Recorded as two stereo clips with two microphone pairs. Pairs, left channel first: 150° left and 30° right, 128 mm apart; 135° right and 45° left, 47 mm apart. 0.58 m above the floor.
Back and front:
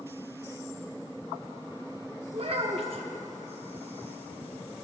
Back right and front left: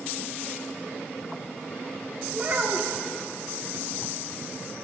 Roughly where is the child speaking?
Ahead.